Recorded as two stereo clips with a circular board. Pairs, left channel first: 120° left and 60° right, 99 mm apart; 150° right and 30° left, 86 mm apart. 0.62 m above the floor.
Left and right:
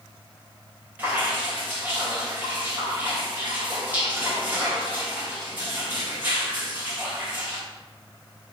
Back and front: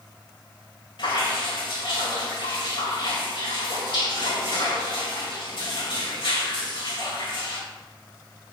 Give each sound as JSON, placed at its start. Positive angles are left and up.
{"t": 1.0, "sound": "dripping", "azimuth_deg": -135, "distance_m": 3.0}